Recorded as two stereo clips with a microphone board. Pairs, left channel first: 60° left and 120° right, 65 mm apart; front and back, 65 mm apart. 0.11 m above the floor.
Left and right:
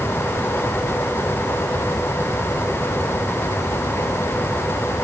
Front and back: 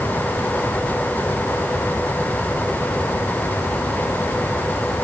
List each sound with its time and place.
Only background noise.